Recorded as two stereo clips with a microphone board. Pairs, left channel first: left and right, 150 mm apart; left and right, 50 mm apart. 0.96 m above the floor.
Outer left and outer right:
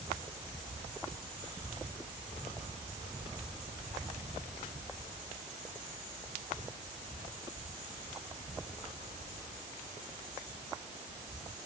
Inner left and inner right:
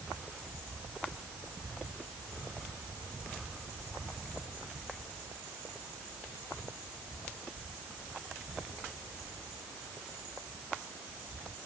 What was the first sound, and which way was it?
Only background noise.